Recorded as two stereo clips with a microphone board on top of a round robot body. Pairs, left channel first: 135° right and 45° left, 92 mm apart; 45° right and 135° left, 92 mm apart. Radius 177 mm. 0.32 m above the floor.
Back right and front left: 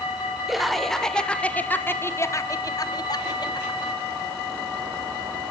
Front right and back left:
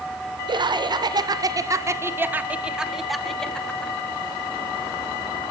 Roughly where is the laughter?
Behind left.